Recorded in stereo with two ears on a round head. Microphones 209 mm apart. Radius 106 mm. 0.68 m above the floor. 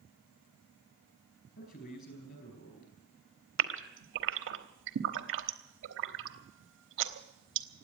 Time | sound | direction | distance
1.6 | a man speaking | 40° left (ahead or behind) | 4.5 m
3.6 | a gasp | 55° right (ahead or behind) | 1.1 m